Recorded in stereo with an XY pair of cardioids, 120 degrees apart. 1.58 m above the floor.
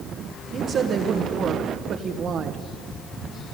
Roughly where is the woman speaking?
Ahead right.